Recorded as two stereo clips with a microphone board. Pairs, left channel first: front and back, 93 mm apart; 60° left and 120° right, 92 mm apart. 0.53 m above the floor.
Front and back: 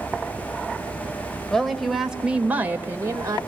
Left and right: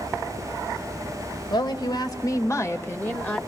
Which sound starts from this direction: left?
A woman speaking, at 1.5 s.